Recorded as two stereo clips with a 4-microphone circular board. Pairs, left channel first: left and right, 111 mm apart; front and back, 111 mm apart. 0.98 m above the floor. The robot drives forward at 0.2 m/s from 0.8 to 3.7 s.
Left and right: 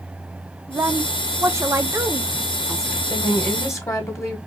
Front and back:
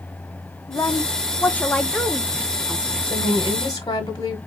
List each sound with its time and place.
0.7 s a woman speaking: 40° right, 0.6 m; by 3.0 s 125° right, 0.5 m
3.1 s a woman speaking: 30° left, 0.9 m; by 4.4 s 35° left, 0.8 m